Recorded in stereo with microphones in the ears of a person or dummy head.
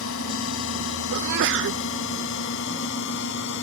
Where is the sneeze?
60° right (ahead or behind).